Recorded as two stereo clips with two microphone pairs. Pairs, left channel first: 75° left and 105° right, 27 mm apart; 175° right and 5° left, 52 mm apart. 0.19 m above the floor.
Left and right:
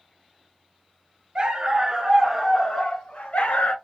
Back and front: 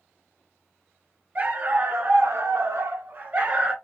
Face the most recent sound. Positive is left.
turn(degrees=70)